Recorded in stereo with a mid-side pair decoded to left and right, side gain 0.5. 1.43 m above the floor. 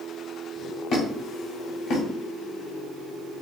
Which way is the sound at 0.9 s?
60° left.